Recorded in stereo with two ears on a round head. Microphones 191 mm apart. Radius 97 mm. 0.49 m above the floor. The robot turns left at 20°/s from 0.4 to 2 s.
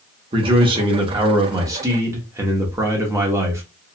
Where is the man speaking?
25° right (ahead or behind), 0.7 m; by 3.6 s 15° right (ahead or behind), 0.7 m.